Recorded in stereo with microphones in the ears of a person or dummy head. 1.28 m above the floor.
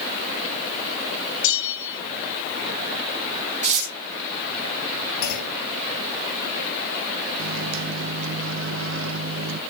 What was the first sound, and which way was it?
A bell, 70° left (ahead or behind).